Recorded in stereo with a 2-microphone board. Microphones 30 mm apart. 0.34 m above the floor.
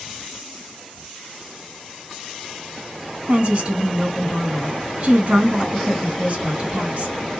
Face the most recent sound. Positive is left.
turn(degrees=-45)  # may be behind; listen again after turning